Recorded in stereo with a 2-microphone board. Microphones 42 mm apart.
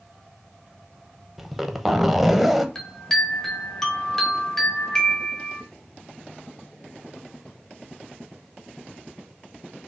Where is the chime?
10° left (ahead or behind), 0.9 m.